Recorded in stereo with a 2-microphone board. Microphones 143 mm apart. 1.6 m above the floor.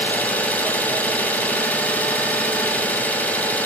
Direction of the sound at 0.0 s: 10° left (ahead or behind).